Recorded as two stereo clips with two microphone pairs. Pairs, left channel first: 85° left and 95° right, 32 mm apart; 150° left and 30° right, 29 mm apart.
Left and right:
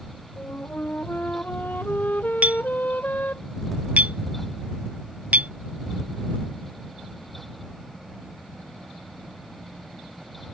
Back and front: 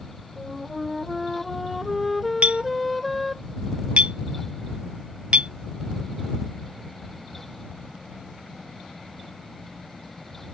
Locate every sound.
0.4 s a flute: 60° left
2.4 s a clink: 60° right